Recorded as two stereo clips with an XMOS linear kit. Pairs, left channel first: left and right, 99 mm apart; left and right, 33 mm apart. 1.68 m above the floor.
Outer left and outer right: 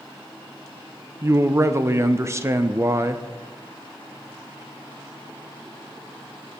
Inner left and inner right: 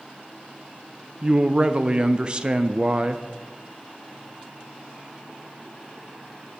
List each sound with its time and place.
1.2 s a man speaking: 30° right (ahead or behind), 0.6 m